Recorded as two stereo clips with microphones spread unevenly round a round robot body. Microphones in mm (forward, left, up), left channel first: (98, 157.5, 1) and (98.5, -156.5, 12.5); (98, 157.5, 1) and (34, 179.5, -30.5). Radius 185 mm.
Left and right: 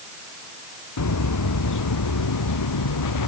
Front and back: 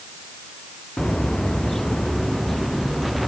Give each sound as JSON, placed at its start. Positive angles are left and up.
{"t": 1.0, "sound": "footsteps", "azimuth_deg": 60}